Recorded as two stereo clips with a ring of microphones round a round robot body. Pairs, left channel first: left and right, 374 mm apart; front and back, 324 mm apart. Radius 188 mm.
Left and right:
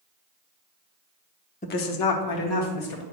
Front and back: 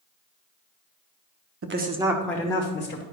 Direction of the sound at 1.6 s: 155° left.